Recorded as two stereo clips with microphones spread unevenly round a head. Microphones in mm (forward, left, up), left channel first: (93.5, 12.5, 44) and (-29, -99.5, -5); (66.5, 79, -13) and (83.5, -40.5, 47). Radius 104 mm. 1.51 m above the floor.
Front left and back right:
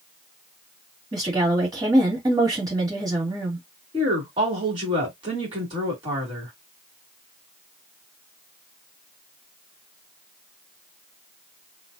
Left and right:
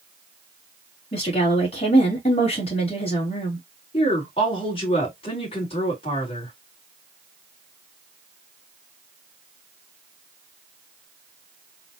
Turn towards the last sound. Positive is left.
turn(degrees=155)